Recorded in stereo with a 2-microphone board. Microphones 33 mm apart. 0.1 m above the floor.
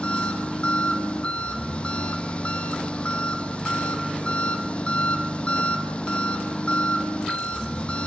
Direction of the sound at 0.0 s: 35° left (ahead or behind).